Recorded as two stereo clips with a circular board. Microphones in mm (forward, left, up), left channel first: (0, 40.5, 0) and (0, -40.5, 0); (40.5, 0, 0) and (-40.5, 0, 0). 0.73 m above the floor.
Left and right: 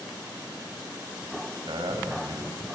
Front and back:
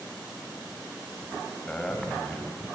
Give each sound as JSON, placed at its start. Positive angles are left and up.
{"t": 1.7, "sound": "a man speaking", "azimuth_deg": -80, "distance_m": 4.5}